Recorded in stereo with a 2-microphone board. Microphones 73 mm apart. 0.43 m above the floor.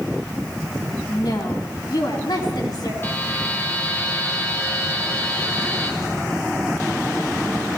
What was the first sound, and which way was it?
A woman speaking, 65° left (ahead or behind).